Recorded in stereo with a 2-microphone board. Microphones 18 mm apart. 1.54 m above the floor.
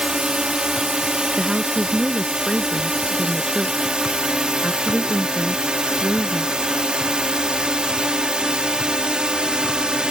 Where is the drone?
55° right (ahead or behind).